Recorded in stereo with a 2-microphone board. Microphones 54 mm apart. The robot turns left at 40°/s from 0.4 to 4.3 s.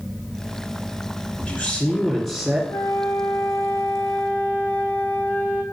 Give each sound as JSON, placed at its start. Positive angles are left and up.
{"t": 1.4, "sound": "a man speaking", "azimuth_deg": 30, "distance_m": 2.0}
{"t": 2.7, "sound": "a flute", "azimuth_deg": 90, "distance_m": 1.3}